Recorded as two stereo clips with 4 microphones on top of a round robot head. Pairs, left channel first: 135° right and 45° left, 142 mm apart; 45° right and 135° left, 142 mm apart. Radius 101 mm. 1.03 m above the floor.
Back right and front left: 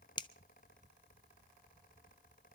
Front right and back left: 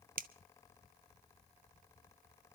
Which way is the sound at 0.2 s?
165° left.